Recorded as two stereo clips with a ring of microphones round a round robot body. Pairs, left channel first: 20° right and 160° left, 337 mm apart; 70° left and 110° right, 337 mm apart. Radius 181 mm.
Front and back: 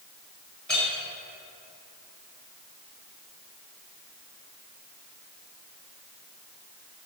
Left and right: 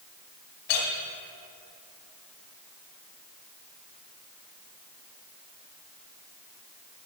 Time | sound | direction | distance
0.7 | a clink | 65° left | 1.7 m